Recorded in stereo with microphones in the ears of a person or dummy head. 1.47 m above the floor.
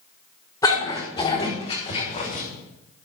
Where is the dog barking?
20° left (ahead or behind), 4 m; by 2.4 s 40° left (ahead or behind), 4 m.